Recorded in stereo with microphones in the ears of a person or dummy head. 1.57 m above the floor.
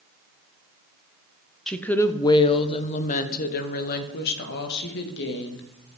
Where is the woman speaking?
Centre (ahead or behind), 1.0 m; by 5.6 s 65° left (ahead or behind), 3 m.